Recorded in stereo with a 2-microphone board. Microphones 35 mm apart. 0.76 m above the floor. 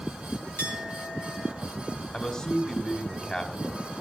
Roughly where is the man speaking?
Left.